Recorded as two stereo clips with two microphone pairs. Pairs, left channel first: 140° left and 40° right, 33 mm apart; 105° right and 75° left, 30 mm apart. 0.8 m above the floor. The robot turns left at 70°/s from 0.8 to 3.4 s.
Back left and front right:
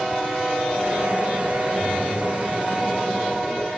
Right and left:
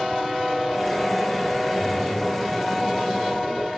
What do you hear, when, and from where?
1.8 s a splash: 60° right, 9 m; by 3.7 s 175° right, 9 m